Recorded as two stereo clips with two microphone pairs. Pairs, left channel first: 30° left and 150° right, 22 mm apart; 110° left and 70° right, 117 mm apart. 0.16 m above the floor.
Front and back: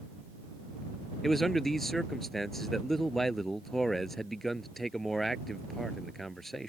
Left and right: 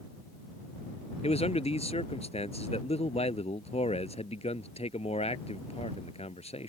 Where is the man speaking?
110° left.